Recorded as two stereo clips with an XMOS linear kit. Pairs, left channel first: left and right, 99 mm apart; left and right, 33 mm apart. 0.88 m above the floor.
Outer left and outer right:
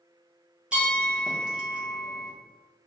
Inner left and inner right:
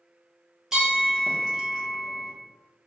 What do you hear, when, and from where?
0.7 s a bell: 10° right (ahead or behind), 1.0 m